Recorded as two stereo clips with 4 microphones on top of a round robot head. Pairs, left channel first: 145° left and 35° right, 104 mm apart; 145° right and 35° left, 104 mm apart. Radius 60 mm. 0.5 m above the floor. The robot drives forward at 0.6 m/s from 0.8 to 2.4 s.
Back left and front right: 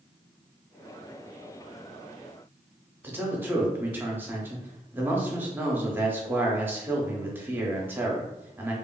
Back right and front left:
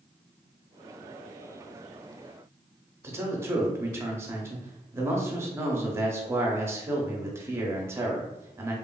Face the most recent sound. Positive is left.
turn(degrees=10)